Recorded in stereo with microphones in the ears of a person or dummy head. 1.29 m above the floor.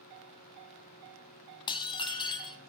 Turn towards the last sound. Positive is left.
turn(degrees=25)  # may be behind; listen again after turning